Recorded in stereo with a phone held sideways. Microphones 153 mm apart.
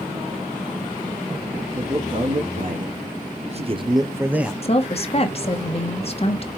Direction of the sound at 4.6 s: 40° left (ahead or behind).